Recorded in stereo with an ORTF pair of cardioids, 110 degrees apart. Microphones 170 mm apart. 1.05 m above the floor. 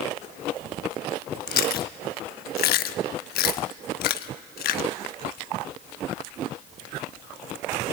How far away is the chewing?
About 1.0 m.